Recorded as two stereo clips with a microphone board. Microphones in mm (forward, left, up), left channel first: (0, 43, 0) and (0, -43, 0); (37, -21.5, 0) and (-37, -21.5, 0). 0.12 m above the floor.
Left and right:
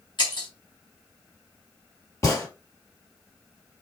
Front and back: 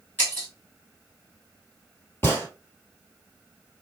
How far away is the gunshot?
About 2 m.